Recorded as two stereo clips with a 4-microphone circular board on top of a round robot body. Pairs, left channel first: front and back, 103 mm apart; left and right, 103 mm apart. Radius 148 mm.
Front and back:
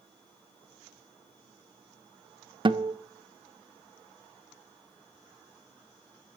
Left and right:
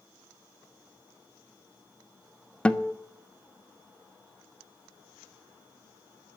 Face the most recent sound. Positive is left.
turn(degrees=165)